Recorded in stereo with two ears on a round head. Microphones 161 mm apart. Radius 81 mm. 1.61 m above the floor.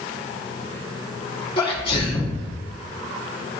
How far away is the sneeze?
About 2.5 m.